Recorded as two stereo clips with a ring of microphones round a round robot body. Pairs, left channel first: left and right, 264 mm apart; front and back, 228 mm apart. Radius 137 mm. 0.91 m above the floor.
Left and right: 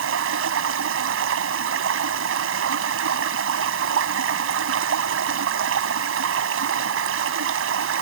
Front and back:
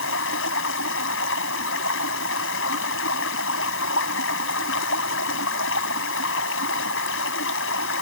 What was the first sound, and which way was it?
Running water, 45° right.